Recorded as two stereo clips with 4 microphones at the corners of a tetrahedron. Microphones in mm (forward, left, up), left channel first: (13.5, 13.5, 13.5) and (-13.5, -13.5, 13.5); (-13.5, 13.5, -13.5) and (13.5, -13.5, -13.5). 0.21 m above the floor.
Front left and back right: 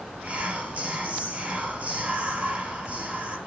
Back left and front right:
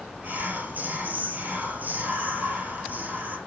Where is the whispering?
85° right, 5.5 m.